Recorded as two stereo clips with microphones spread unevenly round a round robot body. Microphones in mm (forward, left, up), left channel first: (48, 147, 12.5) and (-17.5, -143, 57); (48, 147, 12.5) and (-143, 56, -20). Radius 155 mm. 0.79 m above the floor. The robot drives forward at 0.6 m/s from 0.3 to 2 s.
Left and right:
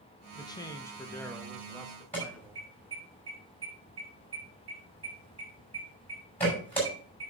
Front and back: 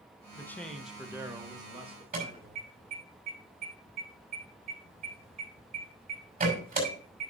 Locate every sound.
0.3 s a man speaking: 105° left, 1.1 m; by 3.1 s 160° left, 1.5 m
2.1 s an alarm: 160° left, 6 m